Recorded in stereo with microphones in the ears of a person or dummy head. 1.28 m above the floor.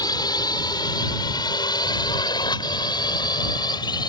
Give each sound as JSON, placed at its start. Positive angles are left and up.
{"t": 0.0, "sound": "a drone", "side_deg": 20}